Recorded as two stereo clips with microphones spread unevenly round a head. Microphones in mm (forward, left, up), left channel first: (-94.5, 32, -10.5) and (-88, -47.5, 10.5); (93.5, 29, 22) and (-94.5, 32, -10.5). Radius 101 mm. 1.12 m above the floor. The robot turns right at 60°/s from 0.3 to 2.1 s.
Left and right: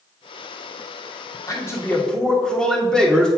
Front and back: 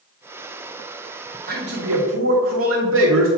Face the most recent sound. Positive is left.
turn(degrees=175)